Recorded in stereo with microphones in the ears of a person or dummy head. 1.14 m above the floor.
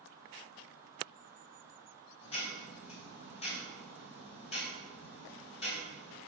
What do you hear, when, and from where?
2.2 s ticking: 35° left (ahead or behind), 3 m